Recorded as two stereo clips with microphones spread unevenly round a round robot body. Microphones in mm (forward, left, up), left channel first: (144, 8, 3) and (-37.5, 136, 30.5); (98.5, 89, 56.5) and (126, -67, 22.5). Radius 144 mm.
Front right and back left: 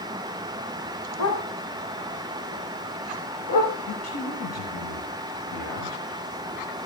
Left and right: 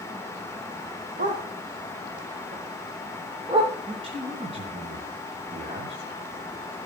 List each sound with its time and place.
1.2 s a dog barking: 40° right, 6.5 m; by 3.8 s 15° right, 9 m
3.9 s a man speaking: 30° right, 4 m